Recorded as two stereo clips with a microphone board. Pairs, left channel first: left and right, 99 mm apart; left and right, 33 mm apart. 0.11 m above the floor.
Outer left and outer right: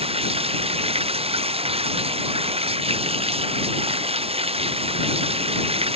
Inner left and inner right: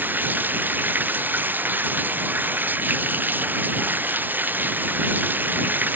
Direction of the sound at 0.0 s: 80° right.